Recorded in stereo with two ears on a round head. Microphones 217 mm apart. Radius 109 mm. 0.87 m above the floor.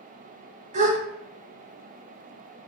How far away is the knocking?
I don't hear knocking.